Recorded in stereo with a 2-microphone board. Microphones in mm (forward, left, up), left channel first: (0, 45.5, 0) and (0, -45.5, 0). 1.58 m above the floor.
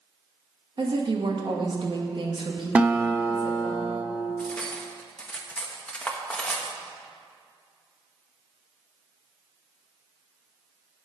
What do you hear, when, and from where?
0.8 s a woman speaking: 55° right (ahead or behind), 2 m
2.8 s a guitar: 15° right (ahead or behind), 1.0 m
4.4 s cutlery clinking: 10° left (ahead or behind), 1.3 m